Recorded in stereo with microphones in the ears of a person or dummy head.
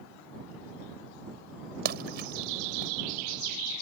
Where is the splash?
60° right (ahead or behind).